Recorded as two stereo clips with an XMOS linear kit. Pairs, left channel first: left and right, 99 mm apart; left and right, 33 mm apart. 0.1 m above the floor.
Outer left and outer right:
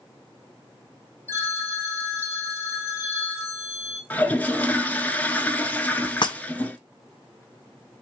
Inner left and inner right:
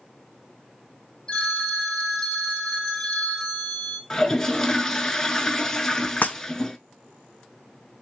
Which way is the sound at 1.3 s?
25° left (ahead or behind).